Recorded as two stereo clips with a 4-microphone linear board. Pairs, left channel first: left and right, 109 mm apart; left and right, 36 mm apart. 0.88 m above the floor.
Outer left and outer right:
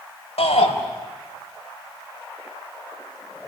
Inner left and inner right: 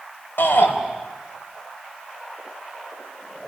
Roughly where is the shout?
Left.